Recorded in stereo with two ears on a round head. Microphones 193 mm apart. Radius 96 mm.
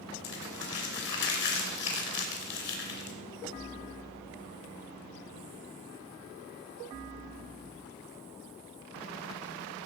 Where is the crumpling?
55° left (ahead or behind), 2.5 m.